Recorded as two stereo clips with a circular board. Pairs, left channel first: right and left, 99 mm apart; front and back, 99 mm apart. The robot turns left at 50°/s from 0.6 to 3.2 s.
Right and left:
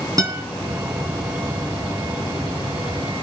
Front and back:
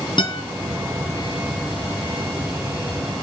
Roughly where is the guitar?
Ahead left.